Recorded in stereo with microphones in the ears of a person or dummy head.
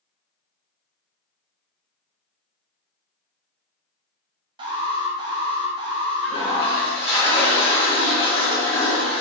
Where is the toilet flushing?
35° left (ahead or behind), 1.9 m.